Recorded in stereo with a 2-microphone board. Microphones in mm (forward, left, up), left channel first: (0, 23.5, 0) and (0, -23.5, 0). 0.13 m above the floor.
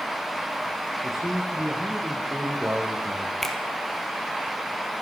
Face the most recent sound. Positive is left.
turn(degrees=5)  # may be behind; listen again after turning